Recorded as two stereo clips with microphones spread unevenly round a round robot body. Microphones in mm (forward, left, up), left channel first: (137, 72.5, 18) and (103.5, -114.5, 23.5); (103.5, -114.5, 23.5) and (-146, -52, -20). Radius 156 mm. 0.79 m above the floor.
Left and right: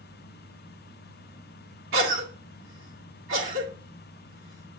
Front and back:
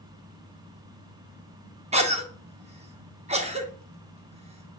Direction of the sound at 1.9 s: 130° right.